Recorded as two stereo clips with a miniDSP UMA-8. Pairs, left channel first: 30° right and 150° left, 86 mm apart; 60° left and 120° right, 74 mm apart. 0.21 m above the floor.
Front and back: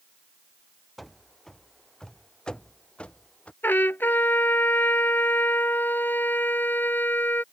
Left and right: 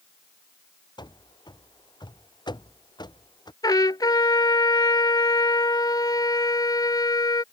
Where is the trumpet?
35° left.